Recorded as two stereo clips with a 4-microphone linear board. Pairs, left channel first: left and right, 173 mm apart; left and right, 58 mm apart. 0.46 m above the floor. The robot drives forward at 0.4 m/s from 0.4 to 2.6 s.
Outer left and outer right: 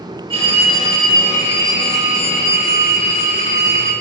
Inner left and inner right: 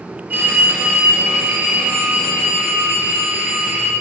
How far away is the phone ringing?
About 1.2 m.